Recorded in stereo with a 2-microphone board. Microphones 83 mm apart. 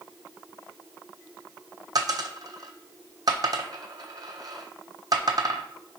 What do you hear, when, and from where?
1.9 s a dropped coin: 50° right (ahead or behind), 0.6 m